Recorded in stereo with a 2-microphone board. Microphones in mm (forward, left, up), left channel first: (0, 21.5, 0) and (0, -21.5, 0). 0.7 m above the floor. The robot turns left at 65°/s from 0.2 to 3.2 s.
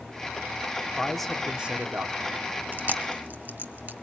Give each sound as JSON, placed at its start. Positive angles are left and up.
{"t": 1.0, "sound": "a man speaking", "azimuth_deg": 20, "distance_m": 1.8}
{"t": 2.7, "sound": "chewing", "side_deg": -45, "distance_m": 1.0}